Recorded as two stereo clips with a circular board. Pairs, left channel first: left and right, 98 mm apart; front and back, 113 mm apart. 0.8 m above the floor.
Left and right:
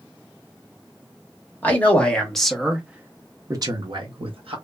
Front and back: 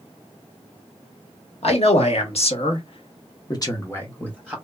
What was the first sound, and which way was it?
A man speaking, 20° left.